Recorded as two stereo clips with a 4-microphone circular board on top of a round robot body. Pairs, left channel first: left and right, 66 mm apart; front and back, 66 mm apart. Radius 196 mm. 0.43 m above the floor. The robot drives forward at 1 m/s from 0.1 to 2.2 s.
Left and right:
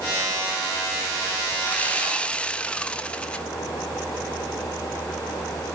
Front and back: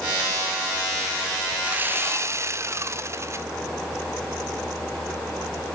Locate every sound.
1.6 s sawing: 130° left, 1.3 m; by 3.5 s 155° left, 1.6 m